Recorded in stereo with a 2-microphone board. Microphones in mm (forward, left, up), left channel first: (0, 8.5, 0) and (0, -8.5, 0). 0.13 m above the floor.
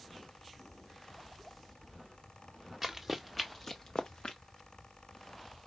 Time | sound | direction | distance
2.8 | running footsteps | 5° right (ahead or behind) | 1.1 m